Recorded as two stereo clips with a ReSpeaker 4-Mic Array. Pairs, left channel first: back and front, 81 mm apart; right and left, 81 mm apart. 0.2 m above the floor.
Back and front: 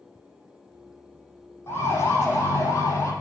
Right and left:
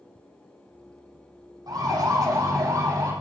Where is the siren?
120° left, 6.5 m; by 3.1 s 130° left, 5.5 m.